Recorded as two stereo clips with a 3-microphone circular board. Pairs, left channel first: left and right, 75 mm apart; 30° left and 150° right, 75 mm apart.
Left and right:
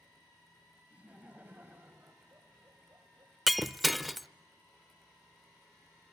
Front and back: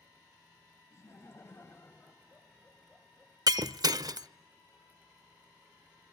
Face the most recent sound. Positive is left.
turn(degrees=180)